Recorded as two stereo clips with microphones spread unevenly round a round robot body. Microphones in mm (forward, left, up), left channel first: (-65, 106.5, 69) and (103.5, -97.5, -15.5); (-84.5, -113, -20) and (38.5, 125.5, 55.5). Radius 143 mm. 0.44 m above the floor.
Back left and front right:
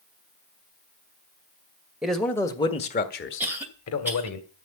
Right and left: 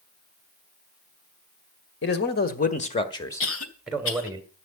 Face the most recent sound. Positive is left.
turn(degrees=-125)